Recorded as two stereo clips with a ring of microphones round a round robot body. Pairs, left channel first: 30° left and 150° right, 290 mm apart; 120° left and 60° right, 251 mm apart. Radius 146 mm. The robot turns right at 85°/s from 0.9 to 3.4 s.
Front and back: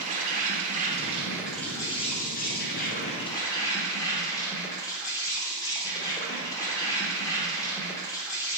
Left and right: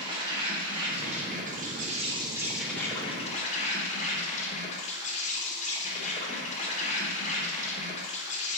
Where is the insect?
115° right, 0.8 m; by 8.6 s 95° left, 0.8 m.